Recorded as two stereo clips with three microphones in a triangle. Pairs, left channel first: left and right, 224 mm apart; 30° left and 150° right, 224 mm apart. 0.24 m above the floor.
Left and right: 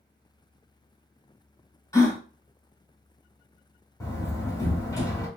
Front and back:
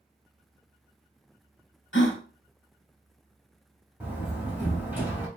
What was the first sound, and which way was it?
A gasp, 20° left.